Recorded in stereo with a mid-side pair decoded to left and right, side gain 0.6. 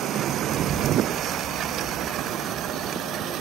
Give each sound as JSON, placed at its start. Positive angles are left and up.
{"t": 0.5, "sound": "a child speaking", "azimuth_deg": -35, "distance_m": 8.0}